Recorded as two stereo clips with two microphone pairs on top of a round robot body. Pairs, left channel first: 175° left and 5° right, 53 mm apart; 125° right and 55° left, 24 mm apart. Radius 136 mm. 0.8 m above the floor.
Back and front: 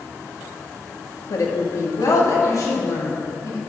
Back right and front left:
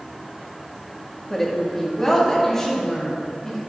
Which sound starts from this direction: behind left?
A woman speaking, at 1.3 s.